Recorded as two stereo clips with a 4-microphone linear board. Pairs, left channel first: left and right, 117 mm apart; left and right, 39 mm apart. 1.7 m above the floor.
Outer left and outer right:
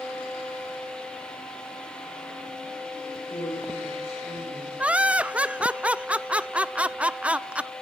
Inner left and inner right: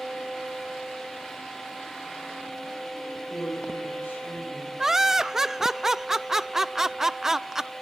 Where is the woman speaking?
85° left, 9.5 m.